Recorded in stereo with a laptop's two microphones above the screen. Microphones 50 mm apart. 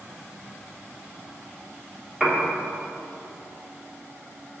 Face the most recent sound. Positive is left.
turn(degrees=-5)  # may be behind; listen again after turning